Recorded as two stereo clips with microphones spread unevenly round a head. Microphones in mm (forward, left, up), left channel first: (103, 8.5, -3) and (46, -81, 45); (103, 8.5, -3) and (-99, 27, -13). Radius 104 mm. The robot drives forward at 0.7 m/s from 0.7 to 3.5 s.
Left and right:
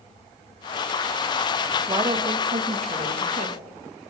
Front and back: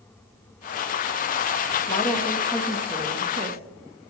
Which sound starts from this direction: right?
A woman speaking, at 1.9 s.